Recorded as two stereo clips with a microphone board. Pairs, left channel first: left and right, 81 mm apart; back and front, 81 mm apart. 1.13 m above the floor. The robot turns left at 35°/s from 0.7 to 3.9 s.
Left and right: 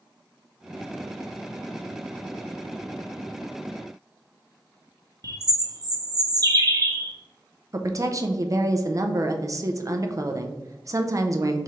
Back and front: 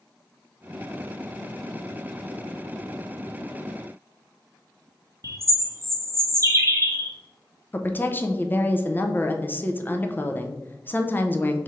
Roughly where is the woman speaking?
Behind right.